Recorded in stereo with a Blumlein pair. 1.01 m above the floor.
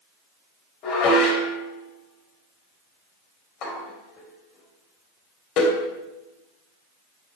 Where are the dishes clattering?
35° left, 3.5 m.